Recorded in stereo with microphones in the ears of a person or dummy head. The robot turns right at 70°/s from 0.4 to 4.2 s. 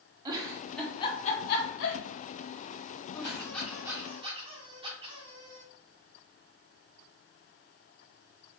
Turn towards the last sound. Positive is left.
turn(degrees=-145)